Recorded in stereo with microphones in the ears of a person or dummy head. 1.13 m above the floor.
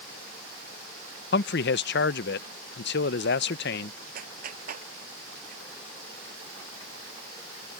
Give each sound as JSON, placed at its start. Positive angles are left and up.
{"t": 1.3, "sound": "a man speaking", "side_deg": 60}
{"t": 4.2, "sound": "a clap", "side_deg": -50}